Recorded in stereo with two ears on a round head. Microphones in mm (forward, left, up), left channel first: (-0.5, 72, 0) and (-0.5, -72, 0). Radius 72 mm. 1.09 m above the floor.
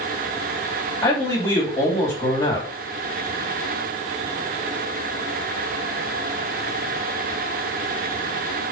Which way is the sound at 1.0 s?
30° left (ahead or behind).